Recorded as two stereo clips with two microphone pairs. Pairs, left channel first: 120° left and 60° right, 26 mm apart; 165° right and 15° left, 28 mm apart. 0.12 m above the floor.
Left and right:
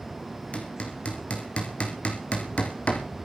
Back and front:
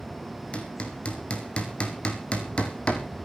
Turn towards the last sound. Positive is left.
turn(degrees=150)